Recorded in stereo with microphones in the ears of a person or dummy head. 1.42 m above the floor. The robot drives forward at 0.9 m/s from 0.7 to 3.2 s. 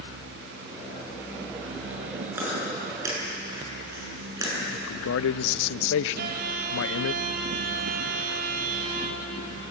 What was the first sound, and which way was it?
Chewing, 15° right (ahead or behind).